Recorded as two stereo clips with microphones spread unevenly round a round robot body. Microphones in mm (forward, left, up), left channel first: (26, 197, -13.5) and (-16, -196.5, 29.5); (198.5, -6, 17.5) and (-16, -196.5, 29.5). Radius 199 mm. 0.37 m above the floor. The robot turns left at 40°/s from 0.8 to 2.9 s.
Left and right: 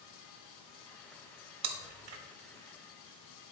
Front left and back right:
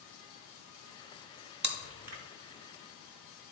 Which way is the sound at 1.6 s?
85° right.